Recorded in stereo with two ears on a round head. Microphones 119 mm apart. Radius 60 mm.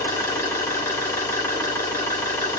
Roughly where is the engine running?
Centre.